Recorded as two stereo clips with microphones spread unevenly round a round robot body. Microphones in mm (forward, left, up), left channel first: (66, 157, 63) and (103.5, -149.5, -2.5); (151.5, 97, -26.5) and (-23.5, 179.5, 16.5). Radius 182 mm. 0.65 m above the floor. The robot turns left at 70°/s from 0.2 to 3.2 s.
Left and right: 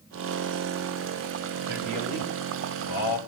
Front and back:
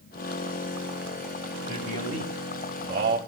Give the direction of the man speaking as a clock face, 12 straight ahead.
5 o'clock.